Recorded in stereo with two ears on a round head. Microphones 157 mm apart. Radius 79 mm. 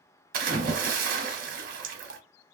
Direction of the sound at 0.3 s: 50° right (ahead or behind).